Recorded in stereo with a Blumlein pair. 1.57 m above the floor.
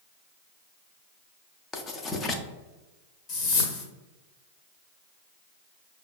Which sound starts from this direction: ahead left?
A whoosh, at 3.3 s.